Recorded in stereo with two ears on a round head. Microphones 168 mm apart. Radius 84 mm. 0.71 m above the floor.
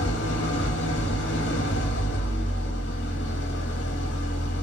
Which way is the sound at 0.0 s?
65° left (ahead or behind).